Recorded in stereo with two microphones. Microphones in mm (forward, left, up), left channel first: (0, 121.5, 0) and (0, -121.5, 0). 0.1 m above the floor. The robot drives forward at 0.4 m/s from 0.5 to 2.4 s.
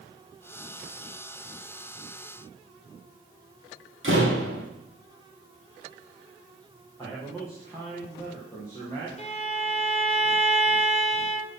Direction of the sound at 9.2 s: 30° left (ahead or behind).